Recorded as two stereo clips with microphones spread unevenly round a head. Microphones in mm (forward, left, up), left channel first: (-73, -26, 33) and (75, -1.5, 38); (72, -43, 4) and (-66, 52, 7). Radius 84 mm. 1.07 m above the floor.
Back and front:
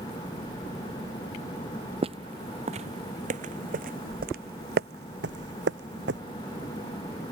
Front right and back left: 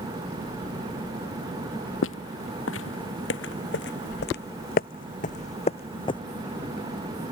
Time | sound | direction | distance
2.0 | footsteps | 40° right | ?